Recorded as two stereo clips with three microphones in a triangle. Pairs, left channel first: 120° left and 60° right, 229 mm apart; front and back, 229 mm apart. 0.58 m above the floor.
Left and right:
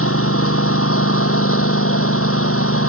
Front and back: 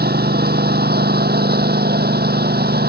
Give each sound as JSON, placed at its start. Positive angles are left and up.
{"t": 0.0, "sound": "a lawn mower", "azimuth_deg": 135}